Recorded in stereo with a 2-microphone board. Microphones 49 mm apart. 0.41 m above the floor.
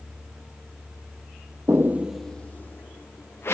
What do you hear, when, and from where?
1.7 s footsteps: 55° right (ahead or behind), 0.7 m; by 3.5 s 55° left (ahead or behind), 2 m